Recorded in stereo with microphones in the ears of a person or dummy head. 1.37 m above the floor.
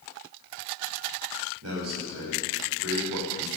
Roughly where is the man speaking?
Right.